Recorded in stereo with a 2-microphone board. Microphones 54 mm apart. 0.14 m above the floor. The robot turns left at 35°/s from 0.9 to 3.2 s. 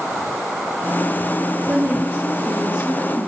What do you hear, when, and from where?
1.7 s a woman speaking: 105° right, 3.5 m; by 3.3 s 160° right, 3.5 m